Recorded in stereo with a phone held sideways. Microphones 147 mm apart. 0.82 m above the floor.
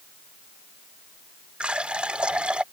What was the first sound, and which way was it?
A running tap, 10° right (ahead or behind).